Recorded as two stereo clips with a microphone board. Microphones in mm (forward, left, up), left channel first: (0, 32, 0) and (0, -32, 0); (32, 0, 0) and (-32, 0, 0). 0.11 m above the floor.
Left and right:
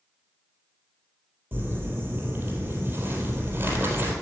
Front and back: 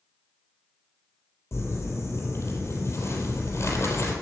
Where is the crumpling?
35° right, 3.5 m.